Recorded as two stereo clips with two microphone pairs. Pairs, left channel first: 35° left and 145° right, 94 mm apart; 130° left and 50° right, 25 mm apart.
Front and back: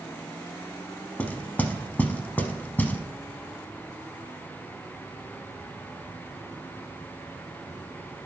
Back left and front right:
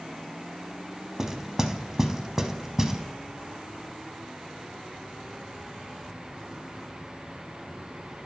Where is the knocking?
10° right, 0.7 m.